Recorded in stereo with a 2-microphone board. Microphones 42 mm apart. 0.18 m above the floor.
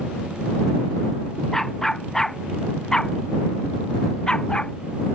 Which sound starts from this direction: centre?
A dog barking, at 1.5 s.